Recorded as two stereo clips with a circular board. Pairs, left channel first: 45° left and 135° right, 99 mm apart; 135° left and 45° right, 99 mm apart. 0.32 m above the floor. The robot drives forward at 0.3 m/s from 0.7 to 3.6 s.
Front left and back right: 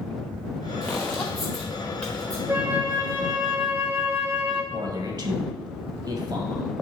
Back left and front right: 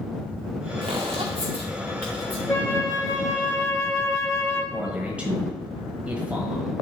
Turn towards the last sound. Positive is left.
turn(degrees=-120)